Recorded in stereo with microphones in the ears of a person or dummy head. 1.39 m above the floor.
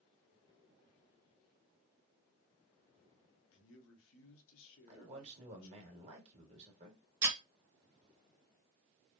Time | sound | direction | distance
3.5 | a man speaking | 80° left | 0.9 m
4.9 | a man speaking | 35° right (ahead or behind) | 1.4 m
7.2 | breaking glass | 15° right (ahead or behind) | 1.9 m